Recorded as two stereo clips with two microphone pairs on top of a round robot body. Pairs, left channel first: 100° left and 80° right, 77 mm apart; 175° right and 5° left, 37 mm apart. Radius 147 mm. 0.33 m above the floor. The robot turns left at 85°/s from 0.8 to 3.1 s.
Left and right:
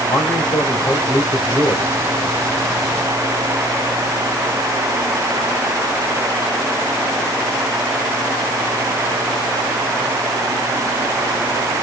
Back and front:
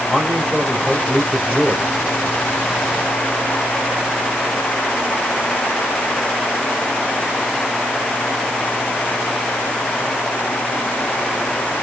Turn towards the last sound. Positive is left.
turn(degrees=-85)